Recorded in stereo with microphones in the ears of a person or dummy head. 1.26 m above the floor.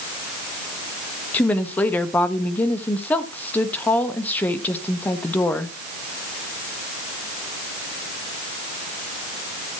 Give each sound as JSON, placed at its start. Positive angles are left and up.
{"t": 1.3, "sound": "a woman speaking", "side_deg": 5, "distance_m": 1.2}